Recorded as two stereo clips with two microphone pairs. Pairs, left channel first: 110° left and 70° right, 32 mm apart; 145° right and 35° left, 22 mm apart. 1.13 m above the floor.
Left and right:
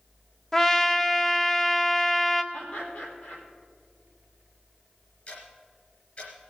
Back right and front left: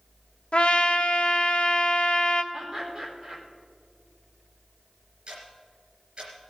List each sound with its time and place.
0.5 s a trumpet: 170° right, 0.7 m
2.5 s laughter: 105° left, 4 m
5.3 s ticking: 70° left, 3.5 m